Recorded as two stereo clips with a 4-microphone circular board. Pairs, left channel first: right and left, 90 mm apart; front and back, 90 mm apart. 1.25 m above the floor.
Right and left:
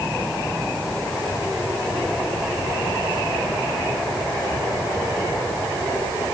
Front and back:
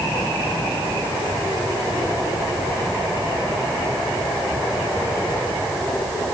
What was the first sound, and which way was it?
Only background noise.